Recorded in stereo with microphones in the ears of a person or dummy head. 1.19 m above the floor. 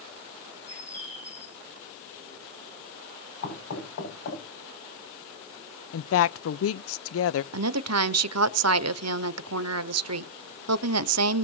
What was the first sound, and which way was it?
A bird, 15° left (ahead or behind).